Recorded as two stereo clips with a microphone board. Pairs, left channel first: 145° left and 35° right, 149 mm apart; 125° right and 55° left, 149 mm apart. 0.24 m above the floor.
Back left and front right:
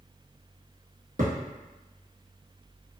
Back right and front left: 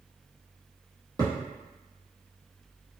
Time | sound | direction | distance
1.2 | a thud | 10° right | 1.7 m